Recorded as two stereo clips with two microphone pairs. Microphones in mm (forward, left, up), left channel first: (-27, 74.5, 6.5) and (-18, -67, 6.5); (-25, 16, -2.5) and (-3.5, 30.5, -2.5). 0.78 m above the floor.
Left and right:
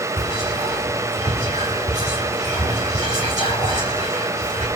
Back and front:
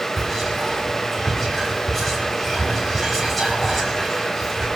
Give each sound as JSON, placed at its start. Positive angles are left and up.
{"t": 0.2, "sound": "whispering", "azimuth_deg": -55, "distance_m": 1.7}